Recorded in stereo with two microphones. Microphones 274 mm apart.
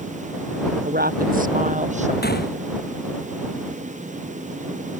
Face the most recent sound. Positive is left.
turn(degrees=35)  # may be behind; listen again after turning